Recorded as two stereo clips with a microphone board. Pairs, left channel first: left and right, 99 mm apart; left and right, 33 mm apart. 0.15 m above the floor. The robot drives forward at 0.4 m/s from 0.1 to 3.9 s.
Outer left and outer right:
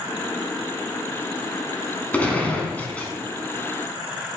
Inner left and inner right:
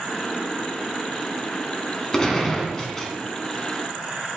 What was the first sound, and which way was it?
A gunshot, 15° left (ahead or behind).